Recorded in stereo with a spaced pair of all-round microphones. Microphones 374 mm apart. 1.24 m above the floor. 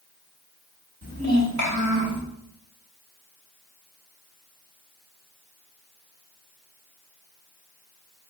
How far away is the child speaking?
About 1.4 m.